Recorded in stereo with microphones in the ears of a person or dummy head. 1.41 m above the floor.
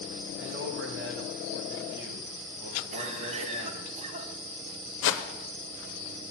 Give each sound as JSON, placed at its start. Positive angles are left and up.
{"t": 0.4, "sound": "a man speaking", "side_deg": -65, "distance_m": 0.8}
{"t": 2.9, "sound": "a cough", "side_deg": -40, "distance_m": 0.6}
{"t": 5.0, "sound": "a whoosh", "side_deg": 70, "distance_m": 0.6}